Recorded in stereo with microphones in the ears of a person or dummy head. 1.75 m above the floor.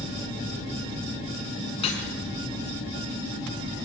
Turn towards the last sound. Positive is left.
turn(degrees=35)  # may be behind; listen again after turning